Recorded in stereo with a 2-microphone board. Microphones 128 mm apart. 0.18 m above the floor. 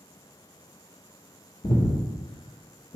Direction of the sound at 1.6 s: 45° left (ahead or behind).